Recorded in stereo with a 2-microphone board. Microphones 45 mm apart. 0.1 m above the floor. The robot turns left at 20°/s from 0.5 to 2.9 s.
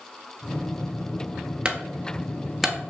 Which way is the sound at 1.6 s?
20° right (ahead or behind).